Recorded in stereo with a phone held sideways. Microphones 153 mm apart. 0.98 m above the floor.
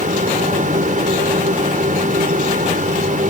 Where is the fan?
65° right (ahead or behind).